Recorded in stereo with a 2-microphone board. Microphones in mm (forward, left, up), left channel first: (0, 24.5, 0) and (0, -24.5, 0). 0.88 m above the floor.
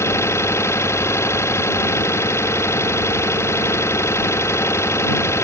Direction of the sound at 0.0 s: 70° left (ahead or behind).